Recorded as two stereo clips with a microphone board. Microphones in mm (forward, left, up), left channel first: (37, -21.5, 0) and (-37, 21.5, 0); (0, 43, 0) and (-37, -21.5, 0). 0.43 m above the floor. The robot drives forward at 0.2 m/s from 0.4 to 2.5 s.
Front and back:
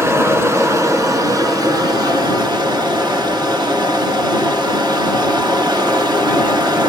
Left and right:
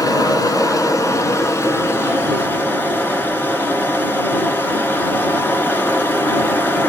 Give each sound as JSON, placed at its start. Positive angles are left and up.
{"t": 0.0, "sound": "running water", "azimuth_deg": 95, "distance_m": 0.8}